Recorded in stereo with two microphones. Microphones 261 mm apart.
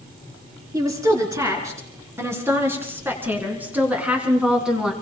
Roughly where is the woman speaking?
Centre.